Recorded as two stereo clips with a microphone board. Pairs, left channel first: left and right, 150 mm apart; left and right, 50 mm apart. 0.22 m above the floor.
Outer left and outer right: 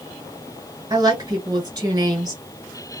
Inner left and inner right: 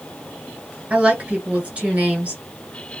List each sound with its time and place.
0.9 s a woman speaking: 25° right (ahead or behind), 1.7 m